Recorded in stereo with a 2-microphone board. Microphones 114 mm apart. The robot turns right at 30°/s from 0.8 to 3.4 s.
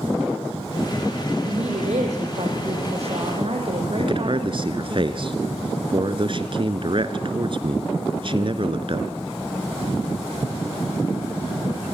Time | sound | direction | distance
1.4 | a woman speaking | 115° right | 6.5 m
4.0 | a man speaking | 50° right (ahead or behind) | 1.8 m